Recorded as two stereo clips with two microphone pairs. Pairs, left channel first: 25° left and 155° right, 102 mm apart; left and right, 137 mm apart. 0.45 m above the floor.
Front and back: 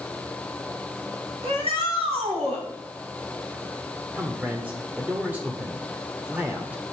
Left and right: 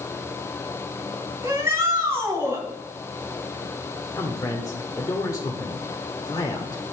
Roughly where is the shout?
Behind.